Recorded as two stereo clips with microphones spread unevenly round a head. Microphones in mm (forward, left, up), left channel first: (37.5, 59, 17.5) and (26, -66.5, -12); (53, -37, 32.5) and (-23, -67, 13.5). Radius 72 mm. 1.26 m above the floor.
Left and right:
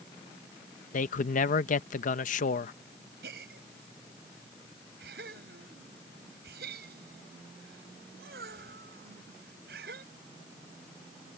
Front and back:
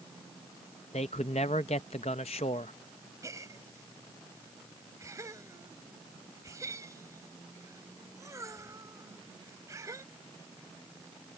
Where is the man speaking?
65° left.